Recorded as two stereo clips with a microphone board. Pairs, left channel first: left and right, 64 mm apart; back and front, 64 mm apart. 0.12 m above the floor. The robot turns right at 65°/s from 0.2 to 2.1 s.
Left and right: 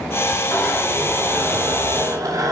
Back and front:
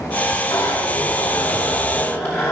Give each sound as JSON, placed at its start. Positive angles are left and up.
{"t": 0.5, "sound": "a zipper", "azimuth_deg": 135, "distance_m": 7.5}